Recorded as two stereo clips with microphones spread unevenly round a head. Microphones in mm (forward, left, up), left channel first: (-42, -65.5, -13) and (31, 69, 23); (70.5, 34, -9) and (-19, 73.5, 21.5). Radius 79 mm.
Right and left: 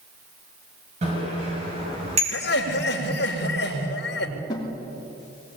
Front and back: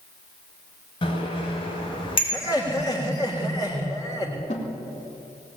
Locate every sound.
1.0 s a bicycle bell: 10° left, 5.5 m
2.3 s laughter: 95° right, 3.5 m
4.5 s a snare drum: 55° right, 3.5 m